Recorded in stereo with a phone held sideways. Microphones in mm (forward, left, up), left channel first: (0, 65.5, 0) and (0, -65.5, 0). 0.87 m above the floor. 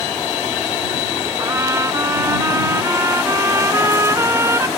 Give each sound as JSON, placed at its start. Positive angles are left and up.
{"t": 1.4, "sound": "a trumpet", "side_deg": -20}